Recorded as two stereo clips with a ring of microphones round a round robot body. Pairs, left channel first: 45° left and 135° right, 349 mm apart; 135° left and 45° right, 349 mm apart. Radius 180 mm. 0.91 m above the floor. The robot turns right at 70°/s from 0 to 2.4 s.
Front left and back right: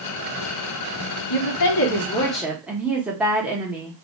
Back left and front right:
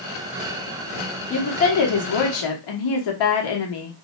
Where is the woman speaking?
60° left, 1.2 m; by 3.9 s 140° left, 1.2 m.